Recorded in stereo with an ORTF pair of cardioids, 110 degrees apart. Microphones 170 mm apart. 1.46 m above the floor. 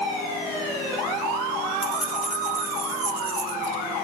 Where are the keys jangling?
5° right, 2 m; by 3.8 s 30° right, 1.7 m.